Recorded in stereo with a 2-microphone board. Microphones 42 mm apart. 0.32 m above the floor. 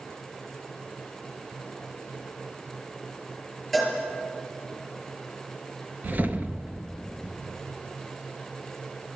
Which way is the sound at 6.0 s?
45° right (ahead or behind).